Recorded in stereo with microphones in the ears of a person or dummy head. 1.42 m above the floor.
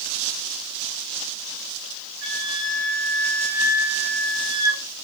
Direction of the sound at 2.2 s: 15° right (ahead or behind).